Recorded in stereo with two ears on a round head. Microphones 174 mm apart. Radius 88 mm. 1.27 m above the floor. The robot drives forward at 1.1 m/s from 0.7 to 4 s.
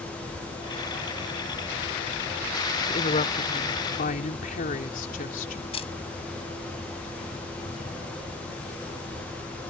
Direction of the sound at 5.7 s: 30° left (ahead or behind).